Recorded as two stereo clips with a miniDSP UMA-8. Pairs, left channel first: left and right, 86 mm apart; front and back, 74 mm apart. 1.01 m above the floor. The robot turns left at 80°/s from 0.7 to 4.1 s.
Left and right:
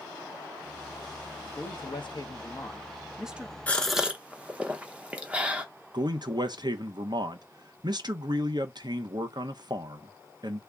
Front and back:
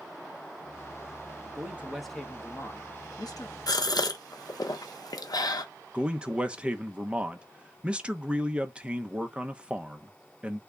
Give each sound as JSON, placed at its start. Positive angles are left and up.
{"t": 1.6, "sound": "a man speaking", "azimuth_deg": 130, "distance_m": 0.7}
{"t": 3.7, "sound": "a gasp", "azimuth_deg": 20, "distance_m": 0.6}
{"t": 5.9, "sound": "a man speaking", "azimuth_deg": -105, "distance_m": 0.5}